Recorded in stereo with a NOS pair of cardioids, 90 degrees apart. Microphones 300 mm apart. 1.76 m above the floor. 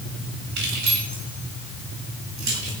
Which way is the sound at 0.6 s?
65° right.